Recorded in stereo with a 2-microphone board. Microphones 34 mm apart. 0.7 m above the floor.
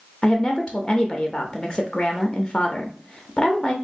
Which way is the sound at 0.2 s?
25° left (ahead or behind).